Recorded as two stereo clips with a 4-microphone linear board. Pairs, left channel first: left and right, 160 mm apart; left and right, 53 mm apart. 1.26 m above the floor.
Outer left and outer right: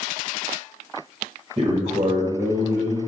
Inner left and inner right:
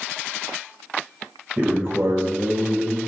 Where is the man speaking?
40° right (ahead or behind), 1.4 m; by 3.0 s 50° right (ahead or behind), 1.0 m.